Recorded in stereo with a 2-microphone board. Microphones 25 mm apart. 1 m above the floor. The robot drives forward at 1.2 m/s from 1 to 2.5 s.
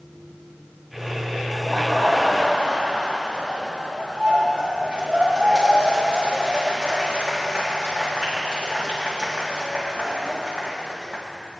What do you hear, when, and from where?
1.5 s laughter: 20° right (ahead or behind), 3 m; by 11.2 s 30° right (ahead or behind), 1.9 m